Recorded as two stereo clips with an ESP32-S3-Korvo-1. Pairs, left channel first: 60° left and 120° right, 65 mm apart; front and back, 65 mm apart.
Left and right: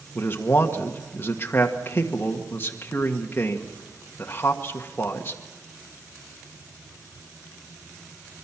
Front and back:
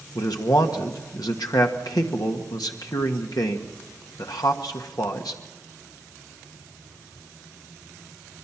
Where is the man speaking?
5° left, 1.6 m.